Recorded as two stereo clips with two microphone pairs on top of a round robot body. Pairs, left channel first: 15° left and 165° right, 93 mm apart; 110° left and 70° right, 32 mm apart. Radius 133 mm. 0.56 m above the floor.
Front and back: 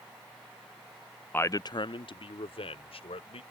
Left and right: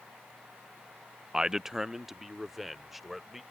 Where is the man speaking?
20° right; by 3.4 s 15° left.